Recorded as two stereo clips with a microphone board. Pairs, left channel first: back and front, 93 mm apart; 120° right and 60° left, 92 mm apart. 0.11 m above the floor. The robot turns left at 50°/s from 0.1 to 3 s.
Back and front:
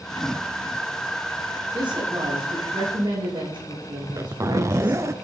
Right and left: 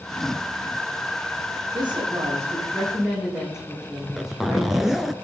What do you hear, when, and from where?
1.7 s a woman speaking: 40° left, 7.5 m; by 5.0 s 25° right, 7.5 m
4.0 s a zipper: 30° right, 0.7 m